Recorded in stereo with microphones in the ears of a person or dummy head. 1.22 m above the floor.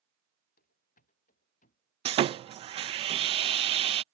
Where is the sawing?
25° right (ahead or behind).